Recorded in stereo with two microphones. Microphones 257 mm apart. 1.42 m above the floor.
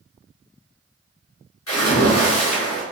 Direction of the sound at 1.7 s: 70° left (ahead or behind).